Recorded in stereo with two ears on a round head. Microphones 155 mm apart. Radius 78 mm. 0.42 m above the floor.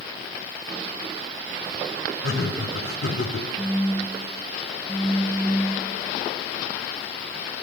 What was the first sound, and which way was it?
Laughter, 70° left (ahead or behind).